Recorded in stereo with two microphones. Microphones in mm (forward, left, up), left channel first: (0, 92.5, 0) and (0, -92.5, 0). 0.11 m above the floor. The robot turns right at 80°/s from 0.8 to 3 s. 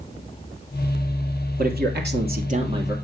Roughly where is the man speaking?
Behind right.